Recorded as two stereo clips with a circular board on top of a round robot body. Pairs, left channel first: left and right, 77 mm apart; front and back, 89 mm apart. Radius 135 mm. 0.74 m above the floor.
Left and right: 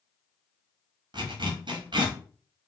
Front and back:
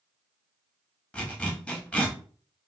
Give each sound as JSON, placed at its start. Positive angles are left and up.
{"t": 1.1, "sound": "a zipper", "azimuth_deg": -80, "distance_m": 0.9}